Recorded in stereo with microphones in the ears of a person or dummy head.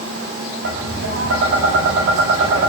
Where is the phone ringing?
No phone ringing in this recording.